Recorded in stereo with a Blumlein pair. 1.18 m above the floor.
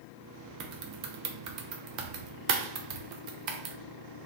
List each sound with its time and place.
0.6 s typing on a keyboard: 40° right, 0.5 m